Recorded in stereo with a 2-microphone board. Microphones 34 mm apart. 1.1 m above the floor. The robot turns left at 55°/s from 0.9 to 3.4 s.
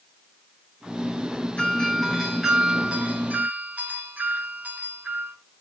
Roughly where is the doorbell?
Ahead left.